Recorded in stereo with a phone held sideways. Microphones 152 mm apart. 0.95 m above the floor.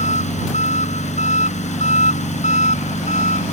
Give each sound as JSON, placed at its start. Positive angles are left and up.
{"t": 0.0, "sound": "an engine running", "side_deg": 50}